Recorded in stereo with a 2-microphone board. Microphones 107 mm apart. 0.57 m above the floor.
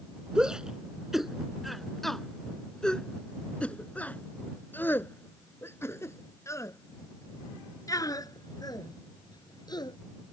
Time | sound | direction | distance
0.3 | a shout | 5° right (ahead or behind) | ?